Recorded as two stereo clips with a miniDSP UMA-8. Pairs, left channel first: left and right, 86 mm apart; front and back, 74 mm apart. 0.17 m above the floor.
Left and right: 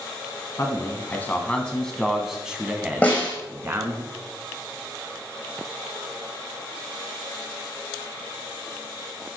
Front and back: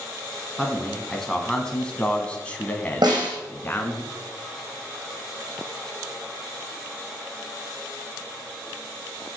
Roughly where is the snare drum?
Behind.